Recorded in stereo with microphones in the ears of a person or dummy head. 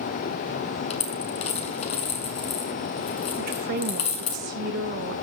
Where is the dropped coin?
30° left (ahead or behind), 3 m.